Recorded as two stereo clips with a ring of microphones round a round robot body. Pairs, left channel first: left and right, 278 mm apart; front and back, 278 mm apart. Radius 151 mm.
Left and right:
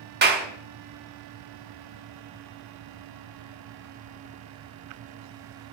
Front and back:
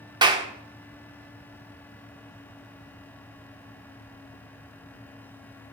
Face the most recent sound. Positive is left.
turn(degrees=-115)